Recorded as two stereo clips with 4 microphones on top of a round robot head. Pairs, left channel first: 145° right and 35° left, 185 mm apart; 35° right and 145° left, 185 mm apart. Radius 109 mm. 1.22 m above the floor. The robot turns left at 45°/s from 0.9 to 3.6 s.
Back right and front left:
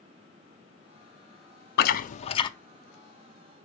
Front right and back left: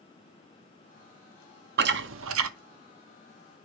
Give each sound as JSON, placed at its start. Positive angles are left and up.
{"t": 1.8, "sound": "chewing", "azimuth_deg": 180, "distance_m": 0.6}